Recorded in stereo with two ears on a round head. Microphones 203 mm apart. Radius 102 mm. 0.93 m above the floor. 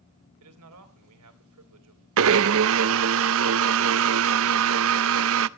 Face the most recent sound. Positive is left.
turn(degrees=-60)  # may be behind; listen again after turning